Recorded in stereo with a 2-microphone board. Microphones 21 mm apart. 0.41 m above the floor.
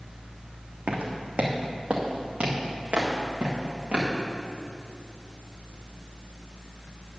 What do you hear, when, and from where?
0.9 s footsteps: 75° right (ahead or behind), 1.5 m; by 4.1 s 55° right (ahead or behind), 3 m